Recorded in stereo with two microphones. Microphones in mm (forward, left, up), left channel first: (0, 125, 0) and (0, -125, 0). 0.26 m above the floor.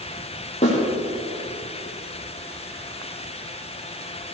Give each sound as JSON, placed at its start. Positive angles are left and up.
{"t": 0.6, "sound": "a snare drum", "side_deg": 25, "distance_m": 7.0}